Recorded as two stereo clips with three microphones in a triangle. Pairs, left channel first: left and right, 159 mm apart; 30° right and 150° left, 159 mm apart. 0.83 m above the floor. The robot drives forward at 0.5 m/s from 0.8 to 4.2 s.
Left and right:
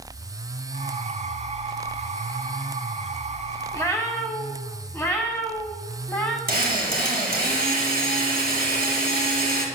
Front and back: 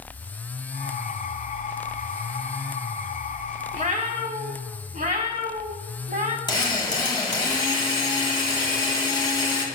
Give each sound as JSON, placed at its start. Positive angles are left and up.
{"t": 3.7, "sound": "a cat meowing", "azimuth_deg": 155, "distance_m": 0.9}
{"t": 6.5, "sound": "a drill", "azimuth_deg": -95, "distance_m": 1.6}